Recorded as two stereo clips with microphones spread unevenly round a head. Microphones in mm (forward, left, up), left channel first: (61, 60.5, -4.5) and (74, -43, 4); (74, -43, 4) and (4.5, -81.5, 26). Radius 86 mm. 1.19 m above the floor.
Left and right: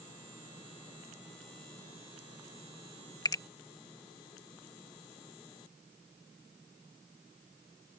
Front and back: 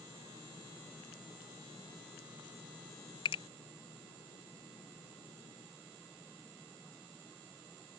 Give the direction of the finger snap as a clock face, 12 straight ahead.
10 o'clock.